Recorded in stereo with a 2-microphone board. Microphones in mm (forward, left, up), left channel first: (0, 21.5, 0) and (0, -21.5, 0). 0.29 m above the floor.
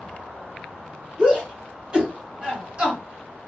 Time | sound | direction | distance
1.2 | a shout | 25° right (ahead or behind) | 1.9 m